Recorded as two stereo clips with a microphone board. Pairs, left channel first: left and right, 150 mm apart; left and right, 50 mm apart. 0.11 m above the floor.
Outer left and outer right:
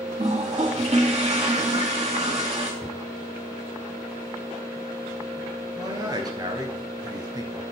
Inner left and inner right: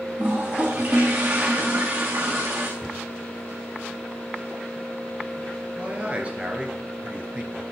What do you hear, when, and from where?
0.2 s a toilet flushing: 45° right (ahead or behind), 2.5 m
2.8 s a cupboard door: 5° left (ahead or behind), 4.5 m
5.8 s a man speaking: 25° right (ahead or behind), 1.5 m